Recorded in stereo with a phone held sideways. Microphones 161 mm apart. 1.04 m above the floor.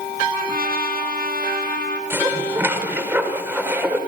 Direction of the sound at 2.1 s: 15° right (ahead or behind).